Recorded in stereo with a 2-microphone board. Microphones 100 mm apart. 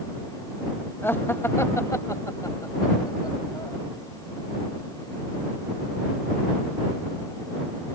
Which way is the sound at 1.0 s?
25° left (ahead or behind).